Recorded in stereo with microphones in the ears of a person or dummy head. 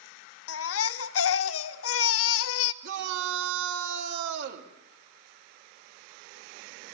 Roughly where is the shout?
Right.